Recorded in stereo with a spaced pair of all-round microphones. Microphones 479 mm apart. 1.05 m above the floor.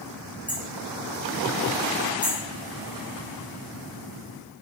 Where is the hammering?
5° right (ahead or behind), 6 m.